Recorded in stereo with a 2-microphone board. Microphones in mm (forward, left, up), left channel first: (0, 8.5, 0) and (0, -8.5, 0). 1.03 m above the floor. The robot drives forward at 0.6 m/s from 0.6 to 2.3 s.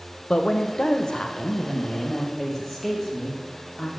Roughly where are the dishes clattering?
No dishes clattering in this recording.